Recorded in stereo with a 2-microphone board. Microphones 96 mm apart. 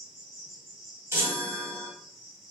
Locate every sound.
0.0 s an insect: centre (ahead or behind), 1.4 m
1.1 s a chime: 30° right (ahead or behind), 1.5 m